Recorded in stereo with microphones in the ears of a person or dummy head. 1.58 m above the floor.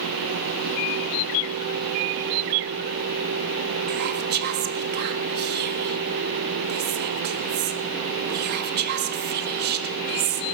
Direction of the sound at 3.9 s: 50° right (ahead or behind).